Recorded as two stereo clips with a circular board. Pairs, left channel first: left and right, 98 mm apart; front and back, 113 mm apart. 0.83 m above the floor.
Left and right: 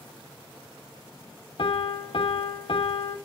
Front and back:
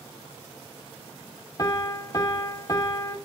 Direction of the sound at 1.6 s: 55° left.